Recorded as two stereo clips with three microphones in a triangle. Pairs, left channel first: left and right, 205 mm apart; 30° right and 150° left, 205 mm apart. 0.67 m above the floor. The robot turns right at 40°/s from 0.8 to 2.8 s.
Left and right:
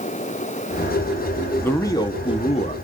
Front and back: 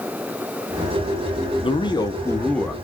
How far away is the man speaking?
About 0.9 m.